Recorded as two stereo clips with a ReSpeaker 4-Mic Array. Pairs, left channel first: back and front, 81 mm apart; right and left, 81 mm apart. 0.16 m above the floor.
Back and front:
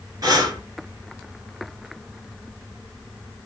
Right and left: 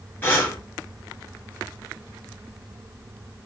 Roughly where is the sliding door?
No sliding door in this recording.